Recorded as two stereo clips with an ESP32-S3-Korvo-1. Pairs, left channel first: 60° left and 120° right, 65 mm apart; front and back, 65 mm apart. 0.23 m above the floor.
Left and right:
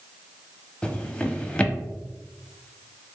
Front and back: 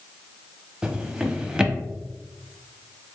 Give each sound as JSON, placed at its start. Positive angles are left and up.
{"t": 0.8, "sound": "a drawer", "azimuth_deg": 115, "distance_m": 0.5}